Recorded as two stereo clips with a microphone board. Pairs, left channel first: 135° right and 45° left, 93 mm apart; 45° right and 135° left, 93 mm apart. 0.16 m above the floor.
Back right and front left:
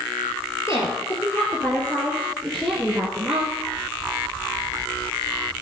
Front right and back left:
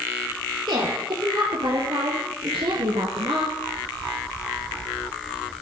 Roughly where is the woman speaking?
Behind.